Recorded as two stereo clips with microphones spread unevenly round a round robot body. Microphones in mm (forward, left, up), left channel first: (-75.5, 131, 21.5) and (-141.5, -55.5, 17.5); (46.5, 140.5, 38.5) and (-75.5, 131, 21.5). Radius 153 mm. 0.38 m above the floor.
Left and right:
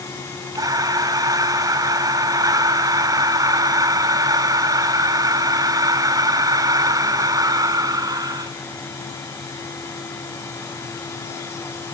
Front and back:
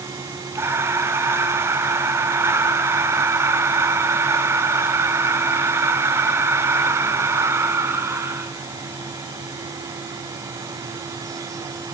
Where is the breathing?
160° right, 1.2 m.